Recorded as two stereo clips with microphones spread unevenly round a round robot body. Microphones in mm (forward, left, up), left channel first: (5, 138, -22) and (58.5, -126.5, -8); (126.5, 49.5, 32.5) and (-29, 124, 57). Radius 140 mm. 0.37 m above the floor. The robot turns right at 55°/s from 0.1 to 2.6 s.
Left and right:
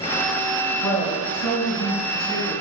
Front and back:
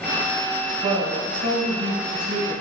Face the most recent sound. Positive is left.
turn(degrees=-155)